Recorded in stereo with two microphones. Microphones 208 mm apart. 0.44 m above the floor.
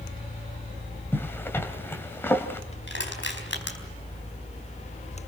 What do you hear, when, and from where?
1.1 s a zipper: 10° left (ahead or behind), 2 m
2.9 s crushing: 65° left (ahead or behind), 4 m